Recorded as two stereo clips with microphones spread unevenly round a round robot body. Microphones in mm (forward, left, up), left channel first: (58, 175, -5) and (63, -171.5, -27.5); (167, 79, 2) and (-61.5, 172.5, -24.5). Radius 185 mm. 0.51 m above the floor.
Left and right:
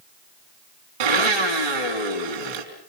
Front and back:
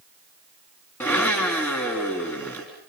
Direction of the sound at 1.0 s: 105° right.